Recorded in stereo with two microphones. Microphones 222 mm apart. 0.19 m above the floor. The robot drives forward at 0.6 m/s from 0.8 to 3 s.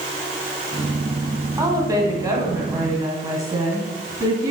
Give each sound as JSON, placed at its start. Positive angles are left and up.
{"t": 1.6, "sound": "a woman speaking", "side_deg": -15, "distance_m": 1.6}